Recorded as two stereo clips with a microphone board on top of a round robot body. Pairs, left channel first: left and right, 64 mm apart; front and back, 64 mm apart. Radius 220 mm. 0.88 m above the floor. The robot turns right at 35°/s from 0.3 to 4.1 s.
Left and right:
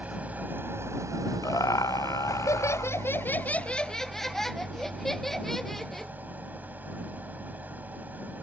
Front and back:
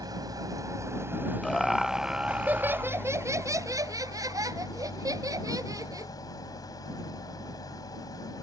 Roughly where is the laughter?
Left.